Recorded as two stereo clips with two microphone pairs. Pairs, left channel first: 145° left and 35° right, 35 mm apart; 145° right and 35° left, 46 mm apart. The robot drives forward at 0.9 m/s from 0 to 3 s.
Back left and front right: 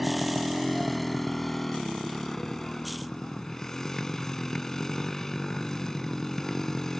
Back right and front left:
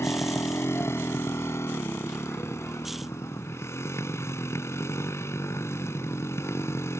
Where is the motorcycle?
125° right; by 7.0 s 140° right.